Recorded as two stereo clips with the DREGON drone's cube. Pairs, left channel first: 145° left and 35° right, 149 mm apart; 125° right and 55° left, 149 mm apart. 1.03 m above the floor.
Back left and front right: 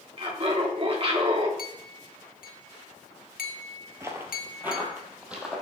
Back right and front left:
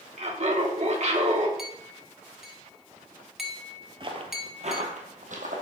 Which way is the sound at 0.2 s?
15° left.